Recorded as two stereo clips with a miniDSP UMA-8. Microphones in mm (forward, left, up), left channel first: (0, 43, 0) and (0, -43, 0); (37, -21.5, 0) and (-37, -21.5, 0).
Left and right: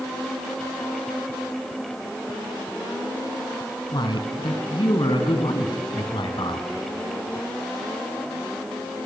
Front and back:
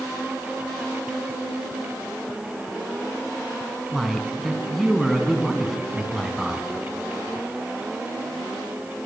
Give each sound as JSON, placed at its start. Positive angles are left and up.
{"t": 3.9, "sound": "a man speaking", "azimuth_deg": 90, "distance_m": 3.0}